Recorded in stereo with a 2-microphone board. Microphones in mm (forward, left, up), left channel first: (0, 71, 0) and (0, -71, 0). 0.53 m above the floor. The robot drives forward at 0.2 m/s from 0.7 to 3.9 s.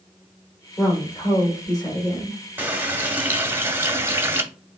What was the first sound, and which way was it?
A woman speaking, 25° left (ahead or behind).